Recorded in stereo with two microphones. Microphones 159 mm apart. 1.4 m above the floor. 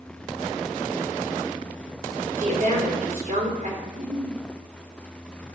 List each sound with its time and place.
2.4 s a woman speaking: 55° right (ahead or behind), 3.5 m
3.9 s a giggle: 65° right (ahead or behind), 1.8 m